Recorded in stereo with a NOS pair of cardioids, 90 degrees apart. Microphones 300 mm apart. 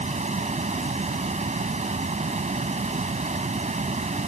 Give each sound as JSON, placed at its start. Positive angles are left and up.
{"t": 0.0, "sound": "a fan", "azimuth_deg": -25}